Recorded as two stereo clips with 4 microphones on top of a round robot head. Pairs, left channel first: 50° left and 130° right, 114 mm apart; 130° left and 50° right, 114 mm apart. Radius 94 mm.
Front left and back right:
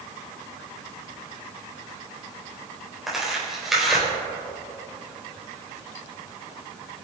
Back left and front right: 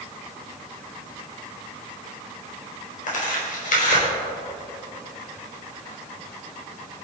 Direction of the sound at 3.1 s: 140° left.